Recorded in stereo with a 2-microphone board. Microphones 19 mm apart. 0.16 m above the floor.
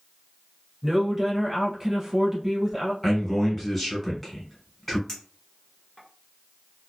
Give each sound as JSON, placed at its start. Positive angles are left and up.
{"t": 0.8, "sound": "a woman speaking", "side_deg": -10, "distance_m": 1.2}
{"t": 3.0, "sound": "a man speaking", "side_deg": 5, "distance_m": 1.4}
{"t": 5.1, "sound": "a clink", "side_deg": 25, "distance_m": 1.1}